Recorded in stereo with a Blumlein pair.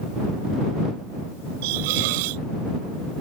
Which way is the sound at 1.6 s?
50° right.